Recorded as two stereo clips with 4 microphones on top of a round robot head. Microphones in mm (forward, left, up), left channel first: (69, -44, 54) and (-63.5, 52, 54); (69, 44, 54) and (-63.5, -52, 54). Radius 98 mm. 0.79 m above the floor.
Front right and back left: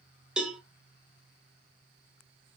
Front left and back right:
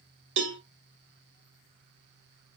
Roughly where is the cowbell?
Behind right.